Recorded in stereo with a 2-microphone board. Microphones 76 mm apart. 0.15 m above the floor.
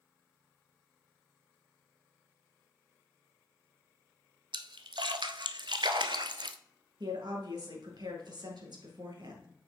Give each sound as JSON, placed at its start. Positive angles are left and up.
{"t": 4.5, "sound": "a splash", "side_deg": -75, "distance_m": 0.5}
{"t": 7.0, "sound": "a woman speaking", "side_deg": -65, "distance_m": 2.5}